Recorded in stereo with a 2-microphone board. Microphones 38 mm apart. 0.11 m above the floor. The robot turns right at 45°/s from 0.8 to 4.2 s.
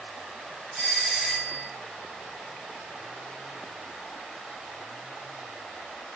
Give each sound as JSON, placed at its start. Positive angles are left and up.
{"t": 0.7, "sound": "a doorbell", "side_deg": -15, "distance_m": 1.5}